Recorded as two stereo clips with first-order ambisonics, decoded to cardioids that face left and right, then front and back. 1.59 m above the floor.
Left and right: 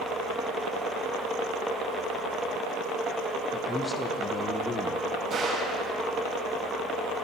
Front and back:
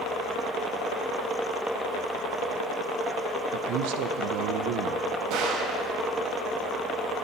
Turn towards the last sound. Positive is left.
turn(degrees=-150)